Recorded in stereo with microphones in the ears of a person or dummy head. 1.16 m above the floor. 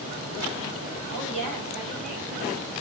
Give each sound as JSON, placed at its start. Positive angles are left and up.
{"t": 1.1, "sound": "a woman speaking", "side_deg": -60, "distance_m": 2.5}